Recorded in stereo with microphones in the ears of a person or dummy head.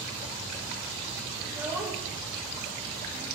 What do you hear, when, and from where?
1.4 s a child speaking: 10° right (ahead or behind), 4 m; by 3.3 s centre (ahead or behind), 3 m